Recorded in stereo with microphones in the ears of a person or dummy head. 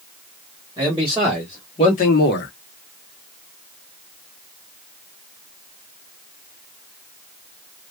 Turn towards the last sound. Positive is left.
turn(degrees=50)  # may be behind; listen again after turning